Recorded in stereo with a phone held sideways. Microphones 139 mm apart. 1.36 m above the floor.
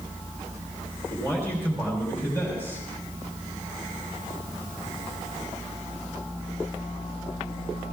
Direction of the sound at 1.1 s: 20° right (ahead or behind).